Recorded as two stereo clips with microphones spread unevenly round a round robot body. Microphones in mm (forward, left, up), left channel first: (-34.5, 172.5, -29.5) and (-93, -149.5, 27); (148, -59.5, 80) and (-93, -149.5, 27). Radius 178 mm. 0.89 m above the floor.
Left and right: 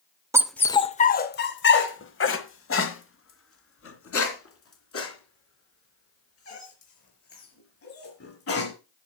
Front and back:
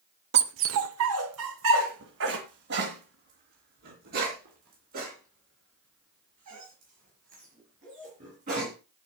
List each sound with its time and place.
0.3 s a dog barking: 145° right, 0.5 m; by 8.7 s 130° left, 6 m